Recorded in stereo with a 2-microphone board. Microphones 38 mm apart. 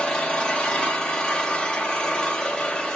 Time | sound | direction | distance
0.0 | an engine running | 25° left (ahead or behind) | 0.7 m